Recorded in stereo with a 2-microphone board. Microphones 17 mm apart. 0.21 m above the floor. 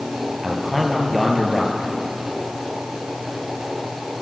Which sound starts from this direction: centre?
A man speaking, at 0.4 s.